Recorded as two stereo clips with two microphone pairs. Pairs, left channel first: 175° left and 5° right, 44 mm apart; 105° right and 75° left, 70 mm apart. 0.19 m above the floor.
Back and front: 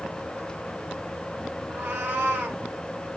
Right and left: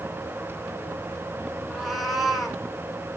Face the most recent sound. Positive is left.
turn(degrees=-15)